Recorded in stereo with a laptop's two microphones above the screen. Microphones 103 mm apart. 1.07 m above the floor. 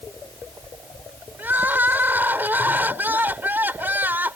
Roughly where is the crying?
Centre.